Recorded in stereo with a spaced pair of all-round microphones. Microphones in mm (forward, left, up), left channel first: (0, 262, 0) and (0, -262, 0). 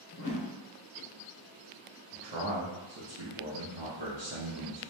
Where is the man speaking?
50° right (ahead or behind), 0.8 m.